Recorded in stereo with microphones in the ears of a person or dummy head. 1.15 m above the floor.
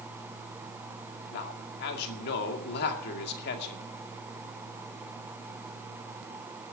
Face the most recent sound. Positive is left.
turn(degrees=55)  # may be behind; listen again after turning